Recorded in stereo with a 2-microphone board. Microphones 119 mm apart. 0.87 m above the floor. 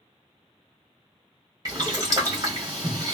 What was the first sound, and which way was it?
Boiling, 30° right (ahead or behind).